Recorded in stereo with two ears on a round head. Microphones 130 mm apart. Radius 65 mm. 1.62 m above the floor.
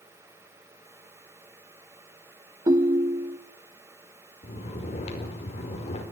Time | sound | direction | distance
2.7 | a ringtone | 25° right (ahead or behind) | 0.7 m
4.4 | snoring | 45° left (ahead or behind) | 5 m